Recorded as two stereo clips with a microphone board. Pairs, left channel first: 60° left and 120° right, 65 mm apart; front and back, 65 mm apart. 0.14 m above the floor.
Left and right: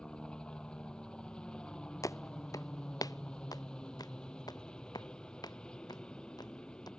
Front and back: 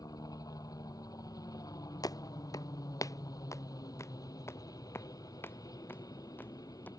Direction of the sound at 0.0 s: 20° right.